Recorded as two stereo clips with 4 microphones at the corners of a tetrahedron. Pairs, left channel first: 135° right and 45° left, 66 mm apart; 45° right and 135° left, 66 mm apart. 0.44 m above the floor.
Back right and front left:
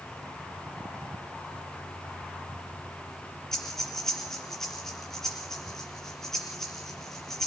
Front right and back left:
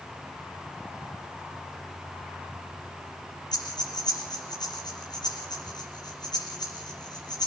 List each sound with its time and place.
3.5 s breathing: 50° right, 5.5 m